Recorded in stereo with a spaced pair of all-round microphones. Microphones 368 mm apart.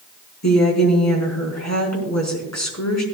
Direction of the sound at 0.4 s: 50° left (ahead or behind).